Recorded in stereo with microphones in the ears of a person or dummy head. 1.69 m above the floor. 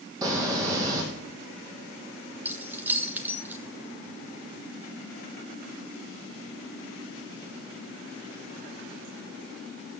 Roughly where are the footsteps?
Centre.